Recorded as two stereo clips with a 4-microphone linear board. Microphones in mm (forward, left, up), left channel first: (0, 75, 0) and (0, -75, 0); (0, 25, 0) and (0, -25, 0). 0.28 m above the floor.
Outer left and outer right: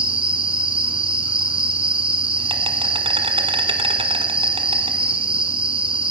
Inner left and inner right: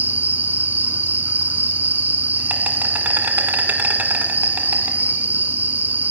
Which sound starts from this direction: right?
An insect, at 0.0 s.